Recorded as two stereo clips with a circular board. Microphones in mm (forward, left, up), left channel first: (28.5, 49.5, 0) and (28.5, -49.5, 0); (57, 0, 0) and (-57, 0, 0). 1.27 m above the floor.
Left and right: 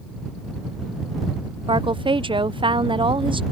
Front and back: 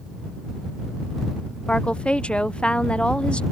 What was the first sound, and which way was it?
A woman speaking, 80° right.